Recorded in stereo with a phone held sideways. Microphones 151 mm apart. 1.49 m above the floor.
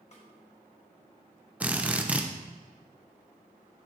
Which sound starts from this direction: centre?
A drill, at 1.6 s.